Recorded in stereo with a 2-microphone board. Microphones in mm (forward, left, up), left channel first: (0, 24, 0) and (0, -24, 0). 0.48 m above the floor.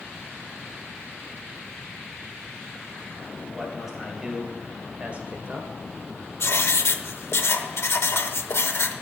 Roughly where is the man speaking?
Centre.